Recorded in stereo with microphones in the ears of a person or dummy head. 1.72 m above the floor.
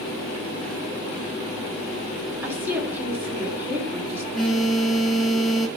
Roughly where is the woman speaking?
Centre.